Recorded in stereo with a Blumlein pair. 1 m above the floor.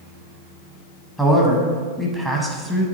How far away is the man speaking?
About 0.8 m.